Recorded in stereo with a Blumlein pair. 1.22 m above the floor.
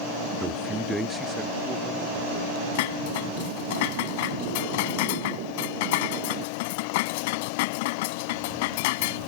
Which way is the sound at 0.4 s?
5° right.